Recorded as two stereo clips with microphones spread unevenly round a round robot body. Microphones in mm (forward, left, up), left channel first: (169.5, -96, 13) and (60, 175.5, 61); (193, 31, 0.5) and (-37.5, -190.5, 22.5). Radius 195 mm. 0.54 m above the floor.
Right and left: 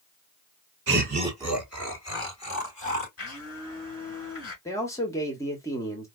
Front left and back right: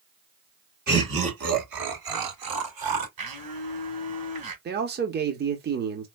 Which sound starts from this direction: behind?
Laughter, at 0.9 s.